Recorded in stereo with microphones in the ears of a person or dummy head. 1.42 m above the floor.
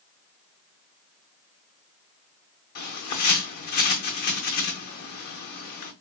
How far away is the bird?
About 0.8 m.